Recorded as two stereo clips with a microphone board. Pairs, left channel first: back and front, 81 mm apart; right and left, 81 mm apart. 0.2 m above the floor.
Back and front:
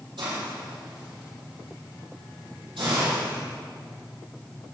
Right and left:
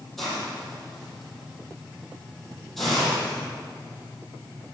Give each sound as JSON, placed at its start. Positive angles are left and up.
{"t": 0.2, "sound": "a hiss", "azimuth_deg": -5, "distance_m": 5.0}